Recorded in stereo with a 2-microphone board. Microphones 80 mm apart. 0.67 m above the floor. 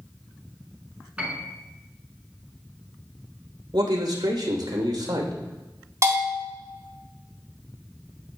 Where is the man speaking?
65° right (ahead or behind), 2.5 m.